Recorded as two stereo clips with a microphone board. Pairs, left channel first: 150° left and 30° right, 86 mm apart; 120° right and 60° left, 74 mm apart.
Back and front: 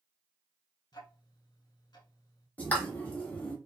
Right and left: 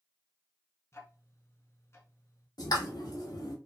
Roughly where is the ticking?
Behind.